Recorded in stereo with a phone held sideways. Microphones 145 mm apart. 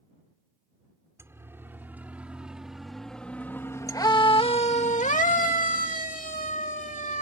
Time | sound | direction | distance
1.2 | a siren | 20° right (ahead or behind) | ?